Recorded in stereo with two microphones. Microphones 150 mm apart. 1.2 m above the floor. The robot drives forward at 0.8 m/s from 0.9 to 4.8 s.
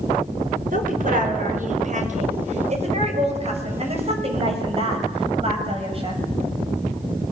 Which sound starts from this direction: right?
A woman speaking, at 0.7 s.